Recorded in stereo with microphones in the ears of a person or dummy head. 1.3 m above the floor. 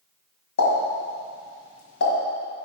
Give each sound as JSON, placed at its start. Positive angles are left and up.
{"t": 0.6, "sound": "a pop", "side_deg": 60, "distance_m": 1.7}